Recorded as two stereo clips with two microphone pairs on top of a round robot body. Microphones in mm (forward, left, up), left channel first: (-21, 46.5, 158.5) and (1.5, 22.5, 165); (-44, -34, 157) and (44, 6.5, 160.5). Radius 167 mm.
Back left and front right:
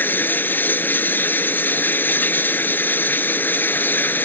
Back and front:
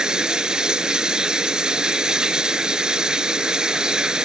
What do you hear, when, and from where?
0.0 s running water: 105° left